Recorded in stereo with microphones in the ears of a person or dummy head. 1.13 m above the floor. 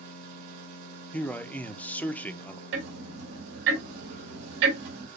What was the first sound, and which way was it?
A machine running, 45° right (ahead or behind).